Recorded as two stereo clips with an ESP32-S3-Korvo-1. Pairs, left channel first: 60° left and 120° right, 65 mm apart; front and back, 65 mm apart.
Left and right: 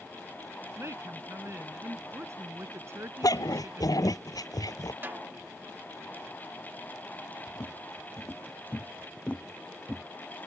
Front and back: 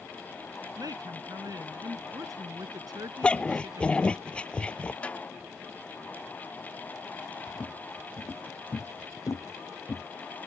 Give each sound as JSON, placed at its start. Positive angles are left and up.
{"t": 0.8, "sound": "a woman speaking", "azimuth_deg": -165}
{"t": 3.2, "sound": "a dog barking", "azimuth_deg": 70}
{"t": 5.0, "sound": "a snare drum", "azimuth_deg": -70}
{"t": 7.5, "sound": "footsteps", "azimuth_deg": 50}